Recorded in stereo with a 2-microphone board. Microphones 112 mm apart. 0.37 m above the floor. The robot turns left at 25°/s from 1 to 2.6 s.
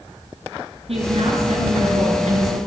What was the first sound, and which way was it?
A woman speaking, 65° right.